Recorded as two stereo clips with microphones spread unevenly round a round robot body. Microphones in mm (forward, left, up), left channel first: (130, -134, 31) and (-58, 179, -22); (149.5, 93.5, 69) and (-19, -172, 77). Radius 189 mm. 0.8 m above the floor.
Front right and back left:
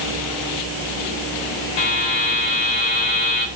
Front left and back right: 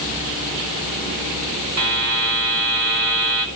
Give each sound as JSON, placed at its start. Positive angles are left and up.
{"t": 1.8, "sound": "a buzzer", "azimuth_deg": -85, "distance_m": 4.5}